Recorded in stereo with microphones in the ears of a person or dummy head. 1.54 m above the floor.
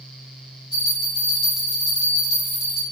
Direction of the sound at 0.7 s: 5° right (ahead or behind).